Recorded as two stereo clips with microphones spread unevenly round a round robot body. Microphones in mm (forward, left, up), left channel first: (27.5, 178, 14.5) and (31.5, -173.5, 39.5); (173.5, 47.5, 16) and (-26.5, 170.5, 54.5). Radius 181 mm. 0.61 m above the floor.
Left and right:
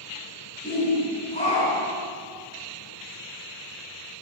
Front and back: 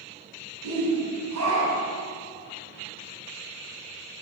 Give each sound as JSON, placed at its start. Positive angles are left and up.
{"t": 0.6, "sound": "a shout", "azimuth_deg": 160, "distance_m": 5.5}